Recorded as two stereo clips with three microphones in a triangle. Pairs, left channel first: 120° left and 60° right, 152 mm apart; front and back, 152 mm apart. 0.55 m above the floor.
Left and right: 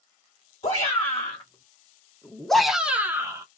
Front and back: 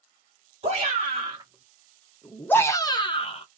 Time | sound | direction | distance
0.6 | a shout | 150° left | 1.1 m